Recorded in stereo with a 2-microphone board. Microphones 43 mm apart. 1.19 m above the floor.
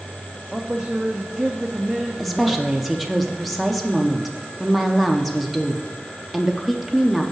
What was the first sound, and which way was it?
A man speaking, 15° right (ahead or behind).